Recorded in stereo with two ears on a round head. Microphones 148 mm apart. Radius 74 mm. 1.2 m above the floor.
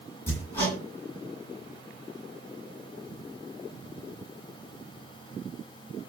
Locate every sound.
0.3 s hammering: 15° left (ahead or behind), 9 m